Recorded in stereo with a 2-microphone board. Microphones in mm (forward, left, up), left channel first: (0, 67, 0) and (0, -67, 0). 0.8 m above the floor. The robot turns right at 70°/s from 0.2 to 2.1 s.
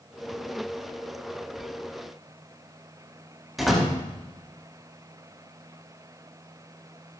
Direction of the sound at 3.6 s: Centre (ahead or behind).